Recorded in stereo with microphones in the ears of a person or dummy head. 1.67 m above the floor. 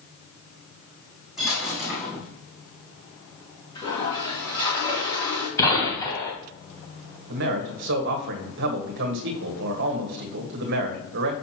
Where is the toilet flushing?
25° left (ahead or behind), 3 m.